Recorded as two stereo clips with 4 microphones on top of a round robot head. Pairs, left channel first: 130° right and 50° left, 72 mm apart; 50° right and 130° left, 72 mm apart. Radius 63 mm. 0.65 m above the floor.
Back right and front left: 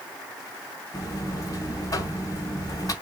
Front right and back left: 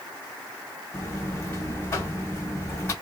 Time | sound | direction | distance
0.9 | a buzzer | 95° right | 2 m